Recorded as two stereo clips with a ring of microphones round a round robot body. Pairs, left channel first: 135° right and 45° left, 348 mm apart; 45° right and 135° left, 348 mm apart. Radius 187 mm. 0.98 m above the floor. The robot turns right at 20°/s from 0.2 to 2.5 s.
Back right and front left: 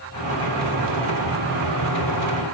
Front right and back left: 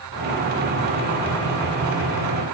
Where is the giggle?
I don't hear a giggle.